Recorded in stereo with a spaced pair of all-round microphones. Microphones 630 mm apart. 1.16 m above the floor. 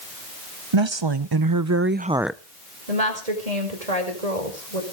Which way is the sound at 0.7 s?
45° right (ahead or behind).